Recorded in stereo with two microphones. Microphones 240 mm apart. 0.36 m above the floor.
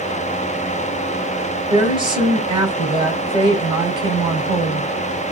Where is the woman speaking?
20° right (ahead or behind), 2.0 m.